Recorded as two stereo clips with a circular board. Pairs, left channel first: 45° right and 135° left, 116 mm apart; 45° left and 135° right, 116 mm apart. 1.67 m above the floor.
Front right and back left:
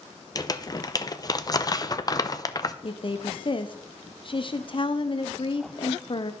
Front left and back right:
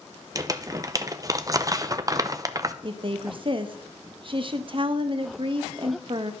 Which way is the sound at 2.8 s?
90° right.